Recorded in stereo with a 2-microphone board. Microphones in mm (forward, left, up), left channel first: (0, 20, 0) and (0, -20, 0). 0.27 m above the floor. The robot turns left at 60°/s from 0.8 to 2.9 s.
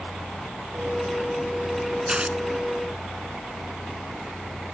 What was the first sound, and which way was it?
Tearing paper, 20° right (ahead or behind).